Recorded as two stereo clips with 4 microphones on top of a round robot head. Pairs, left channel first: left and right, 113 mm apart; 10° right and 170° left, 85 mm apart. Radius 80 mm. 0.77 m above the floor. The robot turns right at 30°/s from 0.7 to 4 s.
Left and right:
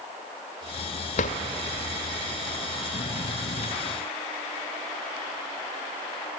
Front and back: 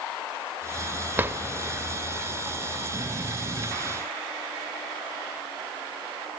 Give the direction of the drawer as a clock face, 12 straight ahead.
9 o'clock.